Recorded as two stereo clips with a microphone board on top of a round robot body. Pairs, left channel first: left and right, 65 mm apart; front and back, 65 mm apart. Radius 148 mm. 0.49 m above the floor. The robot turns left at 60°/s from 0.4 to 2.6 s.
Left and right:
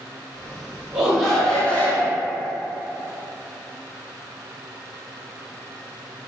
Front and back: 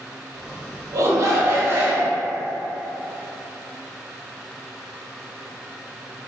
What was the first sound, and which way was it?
A shout, 160° right.